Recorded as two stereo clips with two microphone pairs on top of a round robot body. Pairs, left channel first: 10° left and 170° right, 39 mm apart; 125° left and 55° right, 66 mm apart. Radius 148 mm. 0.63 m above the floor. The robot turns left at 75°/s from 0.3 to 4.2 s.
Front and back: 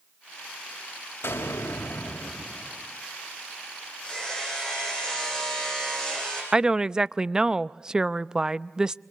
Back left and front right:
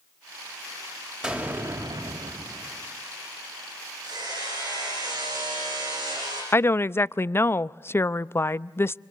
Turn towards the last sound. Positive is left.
turn(degrees=120)